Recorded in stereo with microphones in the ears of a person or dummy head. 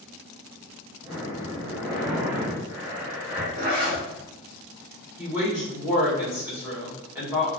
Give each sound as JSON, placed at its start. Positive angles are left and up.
{"t": 1.0, "sound": "breathing", "side_deg": -40, "distance_m": 1.8}
{"t": 3.6, "sound": "a zipper", "side_deg": -35, "distance_m": 0.9}
{"t": 5.2, "sound": "a woman speaking", "side_deg": -15, "distance_m": 1.3}